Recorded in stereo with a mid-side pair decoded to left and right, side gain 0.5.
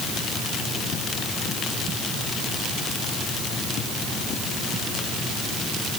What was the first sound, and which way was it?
Only background noise.